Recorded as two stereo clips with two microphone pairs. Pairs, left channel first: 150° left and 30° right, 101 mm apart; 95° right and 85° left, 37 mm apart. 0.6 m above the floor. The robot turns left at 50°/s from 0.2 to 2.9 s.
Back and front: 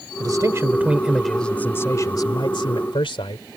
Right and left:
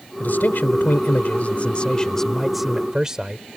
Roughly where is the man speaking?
Right.